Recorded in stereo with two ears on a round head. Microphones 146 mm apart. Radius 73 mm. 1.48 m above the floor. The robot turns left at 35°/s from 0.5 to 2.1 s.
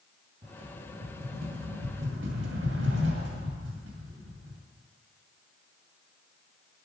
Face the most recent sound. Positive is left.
turn(degrees=-85)